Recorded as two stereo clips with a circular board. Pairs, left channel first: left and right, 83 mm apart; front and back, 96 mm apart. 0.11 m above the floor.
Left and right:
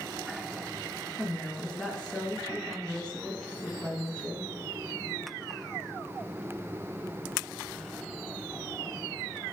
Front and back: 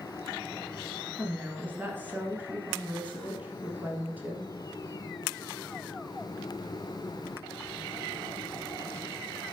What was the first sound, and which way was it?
A woman speaking, 150° left.